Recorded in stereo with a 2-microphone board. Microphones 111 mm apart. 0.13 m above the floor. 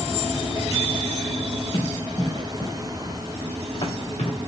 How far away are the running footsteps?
About 3 m.